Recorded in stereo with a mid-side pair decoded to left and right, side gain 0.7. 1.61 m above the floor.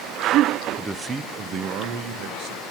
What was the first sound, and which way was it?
A man speaking, 5° right.